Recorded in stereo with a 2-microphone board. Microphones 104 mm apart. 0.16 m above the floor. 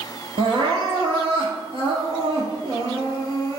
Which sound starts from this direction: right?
Crying, at 0.4 s.